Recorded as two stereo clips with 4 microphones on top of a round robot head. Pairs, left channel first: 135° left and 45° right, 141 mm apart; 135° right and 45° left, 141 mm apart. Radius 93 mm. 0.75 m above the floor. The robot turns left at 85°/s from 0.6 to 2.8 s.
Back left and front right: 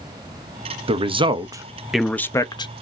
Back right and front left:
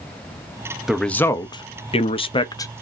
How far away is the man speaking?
About 0.7 m.